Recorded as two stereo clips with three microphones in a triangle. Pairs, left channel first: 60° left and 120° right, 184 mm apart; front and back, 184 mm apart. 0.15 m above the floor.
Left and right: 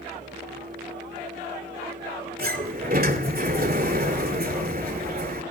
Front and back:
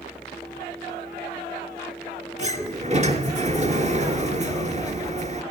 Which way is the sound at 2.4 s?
135° right.